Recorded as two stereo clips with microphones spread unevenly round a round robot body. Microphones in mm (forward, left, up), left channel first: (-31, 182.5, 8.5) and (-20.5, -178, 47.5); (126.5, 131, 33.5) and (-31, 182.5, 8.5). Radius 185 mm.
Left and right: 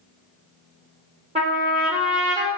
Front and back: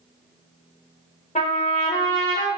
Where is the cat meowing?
I don't hear a cat meowing.